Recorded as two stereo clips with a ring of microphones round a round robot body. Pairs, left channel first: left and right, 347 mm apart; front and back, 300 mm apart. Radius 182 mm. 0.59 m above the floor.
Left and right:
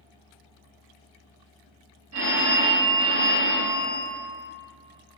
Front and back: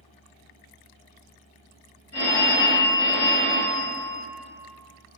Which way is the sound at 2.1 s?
50° right.